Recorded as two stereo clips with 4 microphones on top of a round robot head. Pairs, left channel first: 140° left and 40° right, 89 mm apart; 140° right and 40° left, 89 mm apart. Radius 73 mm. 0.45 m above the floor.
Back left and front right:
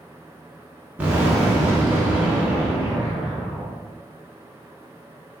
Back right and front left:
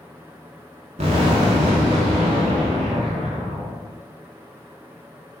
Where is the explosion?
35° left, 0.7 m.